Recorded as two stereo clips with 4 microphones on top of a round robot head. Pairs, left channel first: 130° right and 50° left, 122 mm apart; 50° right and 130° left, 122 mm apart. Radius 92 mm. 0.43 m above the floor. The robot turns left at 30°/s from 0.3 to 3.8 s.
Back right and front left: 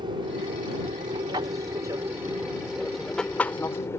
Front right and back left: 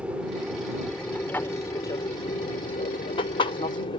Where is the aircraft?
55° left; by 4.0 s 70° right.